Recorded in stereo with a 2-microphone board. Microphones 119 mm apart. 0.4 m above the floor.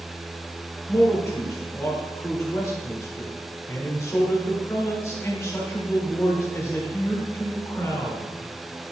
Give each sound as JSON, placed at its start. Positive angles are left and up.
{"t": 0.9, "sound": "a man speaking", "side_deg": 25, "distance_m": 1.5}